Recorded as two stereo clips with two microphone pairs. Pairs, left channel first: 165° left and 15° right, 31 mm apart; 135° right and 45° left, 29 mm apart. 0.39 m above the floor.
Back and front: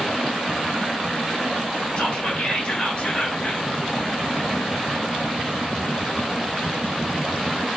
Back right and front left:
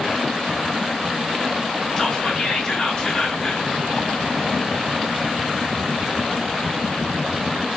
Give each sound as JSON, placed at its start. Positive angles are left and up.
{"t": 2.0, "sound": "whispering", "azimuth_deg": 180, "distance_m": 1.2}